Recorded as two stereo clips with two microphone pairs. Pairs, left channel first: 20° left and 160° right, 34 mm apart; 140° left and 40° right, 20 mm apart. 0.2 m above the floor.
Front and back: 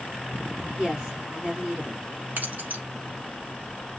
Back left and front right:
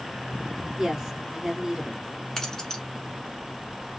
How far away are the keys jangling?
About 1.5 m.